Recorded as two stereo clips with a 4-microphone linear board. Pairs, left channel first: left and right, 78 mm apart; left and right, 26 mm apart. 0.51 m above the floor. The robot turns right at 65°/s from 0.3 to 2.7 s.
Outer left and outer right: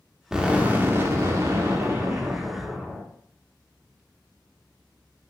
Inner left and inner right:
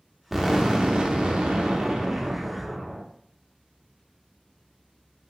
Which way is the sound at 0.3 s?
165° right.